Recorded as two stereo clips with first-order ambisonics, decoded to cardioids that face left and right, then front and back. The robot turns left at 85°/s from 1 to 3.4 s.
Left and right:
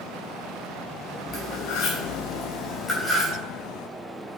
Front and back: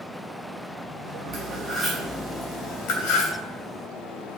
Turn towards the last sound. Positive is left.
turn(degrees=-30)